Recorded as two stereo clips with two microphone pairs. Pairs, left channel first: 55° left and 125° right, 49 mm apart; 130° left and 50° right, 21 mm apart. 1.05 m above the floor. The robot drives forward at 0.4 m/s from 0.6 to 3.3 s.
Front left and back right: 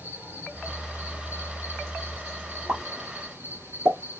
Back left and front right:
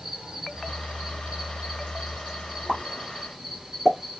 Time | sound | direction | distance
0.0 | an insect | 90° right | 2.5 m
2.7 | a pop | 105° right | 1.9 m